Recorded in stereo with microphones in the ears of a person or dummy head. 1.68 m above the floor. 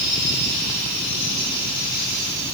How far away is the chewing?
I don't hear chewing.